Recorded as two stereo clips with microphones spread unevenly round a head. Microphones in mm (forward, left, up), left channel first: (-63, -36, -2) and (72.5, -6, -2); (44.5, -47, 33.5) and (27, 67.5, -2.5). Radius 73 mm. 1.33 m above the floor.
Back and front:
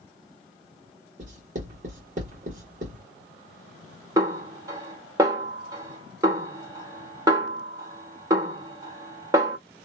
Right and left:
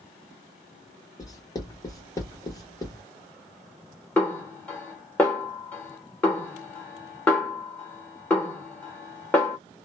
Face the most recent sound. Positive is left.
turn(degrees=-40)